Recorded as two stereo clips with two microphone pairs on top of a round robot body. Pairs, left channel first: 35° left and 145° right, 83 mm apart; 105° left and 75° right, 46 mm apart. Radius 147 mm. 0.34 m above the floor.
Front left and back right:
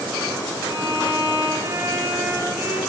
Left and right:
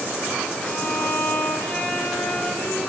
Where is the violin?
155° left, 1.9 m.